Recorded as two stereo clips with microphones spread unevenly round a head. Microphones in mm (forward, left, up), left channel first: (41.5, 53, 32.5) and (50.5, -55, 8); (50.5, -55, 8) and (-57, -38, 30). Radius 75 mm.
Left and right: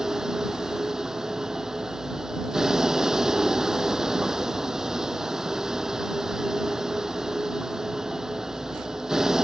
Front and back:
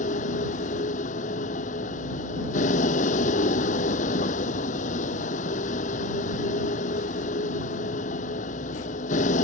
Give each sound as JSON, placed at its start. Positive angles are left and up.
{"t": 0.0, "sound": "a vehicle", "azimuth_deg": 0}